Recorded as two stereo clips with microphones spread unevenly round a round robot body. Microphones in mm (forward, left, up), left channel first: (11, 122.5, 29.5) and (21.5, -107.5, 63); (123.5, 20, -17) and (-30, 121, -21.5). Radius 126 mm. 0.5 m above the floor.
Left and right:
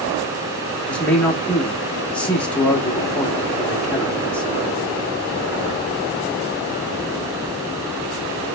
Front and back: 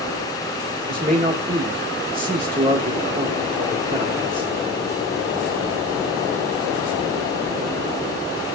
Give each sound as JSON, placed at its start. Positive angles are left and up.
{"t": 0.9, "sound": "a man speaking", "azimuth_deg": 155, "distance_m": 0.7}